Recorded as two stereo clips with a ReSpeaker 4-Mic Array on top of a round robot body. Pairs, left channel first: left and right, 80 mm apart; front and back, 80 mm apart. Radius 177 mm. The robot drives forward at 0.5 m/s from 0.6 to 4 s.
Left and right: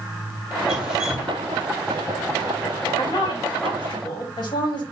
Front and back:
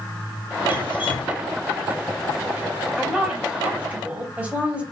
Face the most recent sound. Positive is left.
turn(degrees=110)